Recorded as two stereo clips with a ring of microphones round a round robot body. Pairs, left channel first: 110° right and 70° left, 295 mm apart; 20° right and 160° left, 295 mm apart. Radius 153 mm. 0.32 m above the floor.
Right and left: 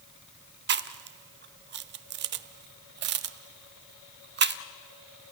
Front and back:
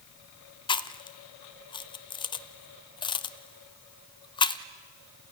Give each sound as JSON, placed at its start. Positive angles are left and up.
{"t": 0.7, "sound": "chewing", "azimuth_deg": 45, "distance_m": 0.8}